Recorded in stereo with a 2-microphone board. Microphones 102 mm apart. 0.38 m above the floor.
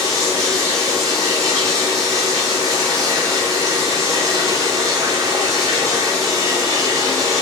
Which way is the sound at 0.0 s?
35° right (ahead or behind).